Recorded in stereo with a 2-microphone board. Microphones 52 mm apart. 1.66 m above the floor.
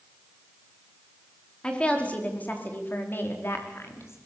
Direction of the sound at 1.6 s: 20° left (ahead or behind).